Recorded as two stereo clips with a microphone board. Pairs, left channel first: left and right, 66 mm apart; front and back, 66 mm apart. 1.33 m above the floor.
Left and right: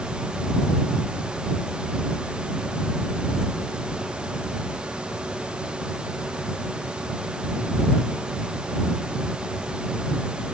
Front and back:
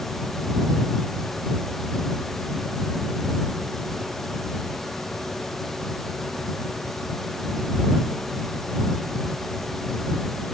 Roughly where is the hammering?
No hammering in this recording.